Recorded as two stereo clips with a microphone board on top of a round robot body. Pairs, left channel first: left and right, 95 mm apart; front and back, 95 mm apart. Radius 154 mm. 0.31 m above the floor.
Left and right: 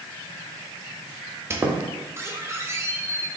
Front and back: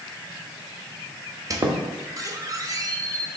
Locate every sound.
1.5 s a squeak: 145° right, 0.8 m